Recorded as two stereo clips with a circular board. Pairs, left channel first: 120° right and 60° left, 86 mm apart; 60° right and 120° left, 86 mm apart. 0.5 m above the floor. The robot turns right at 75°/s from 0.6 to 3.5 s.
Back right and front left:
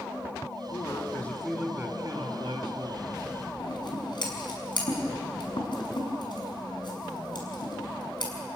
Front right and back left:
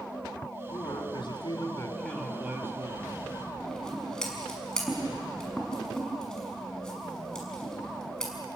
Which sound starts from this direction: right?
A man speaking, at 0.7 s.